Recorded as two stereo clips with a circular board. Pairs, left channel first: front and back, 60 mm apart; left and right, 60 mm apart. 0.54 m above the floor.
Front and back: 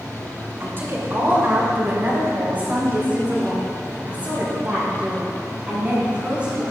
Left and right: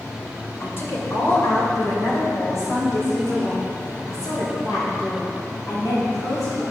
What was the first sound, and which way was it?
A woman speaking, 135° left.